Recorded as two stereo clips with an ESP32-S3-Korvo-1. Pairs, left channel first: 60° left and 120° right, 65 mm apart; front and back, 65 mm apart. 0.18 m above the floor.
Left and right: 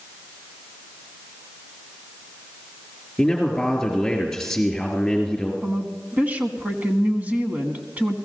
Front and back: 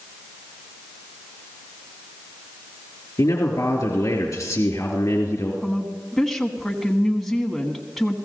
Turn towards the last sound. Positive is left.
turn(degrees=-85)